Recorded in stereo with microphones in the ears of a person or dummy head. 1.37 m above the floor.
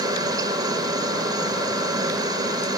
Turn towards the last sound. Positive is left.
turn(degrees=-20)  # may be behind; listen again after turning